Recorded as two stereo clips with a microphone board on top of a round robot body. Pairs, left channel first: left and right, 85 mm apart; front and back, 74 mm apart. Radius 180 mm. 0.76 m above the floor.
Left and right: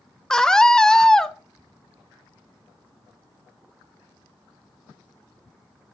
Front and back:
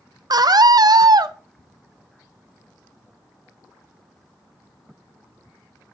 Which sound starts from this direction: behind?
A scream, at 0.3 s.